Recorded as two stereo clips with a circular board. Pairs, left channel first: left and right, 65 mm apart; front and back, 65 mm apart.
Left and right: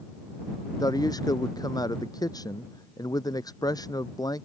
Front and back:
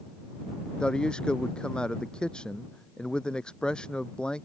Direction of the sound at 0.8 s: 75° left.